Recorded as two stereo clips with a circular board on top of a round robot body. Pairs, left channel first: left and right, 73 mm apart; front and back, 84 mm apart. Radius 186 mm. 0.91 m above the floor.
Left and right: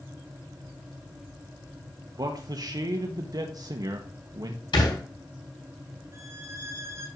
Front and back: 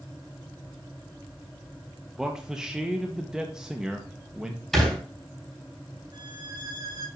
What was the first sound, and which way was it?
A man speaking, 100° right.